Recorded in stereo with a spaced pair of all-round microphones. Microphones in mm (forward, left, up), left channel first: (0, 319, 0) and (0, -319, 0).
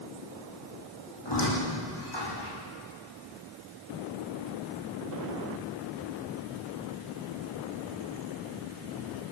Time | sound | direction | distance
1.2 | a squeak | 40° left (ahead or behind) | 7.5 m